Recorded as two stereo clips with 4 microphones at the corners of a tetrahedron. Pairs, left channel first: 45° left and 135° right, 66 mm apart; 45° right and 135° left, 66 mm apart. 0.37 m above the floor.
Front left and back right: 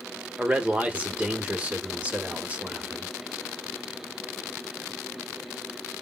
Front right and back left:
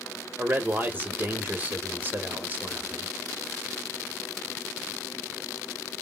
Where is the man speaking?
170° left, 1.0 m.